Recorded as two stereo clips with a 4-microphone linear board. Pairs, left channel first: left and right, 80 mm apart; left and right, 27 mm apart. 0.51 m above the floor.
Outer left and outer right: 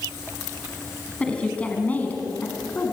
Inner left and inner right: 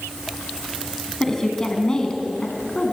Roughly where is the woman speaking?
Centre.